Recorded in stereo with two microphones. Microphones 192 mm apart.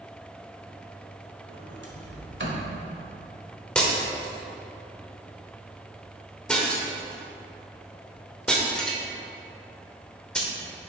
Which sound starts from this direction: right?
A sliding door, at 1.5 s.